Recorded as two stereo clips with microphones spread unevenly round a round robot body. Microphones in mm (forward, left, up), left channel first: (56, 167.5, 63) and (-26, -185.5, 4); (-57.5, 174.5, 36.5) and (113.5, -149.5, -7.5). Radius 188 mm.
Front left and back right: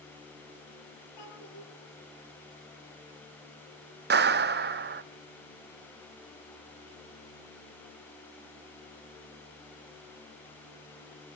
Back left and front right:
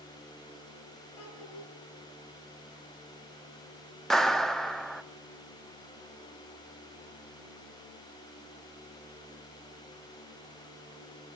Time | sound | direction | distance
1.2 | a child speaking | 110° left | 7.5 m
4.1 | a clap | 145° right | 0.8 m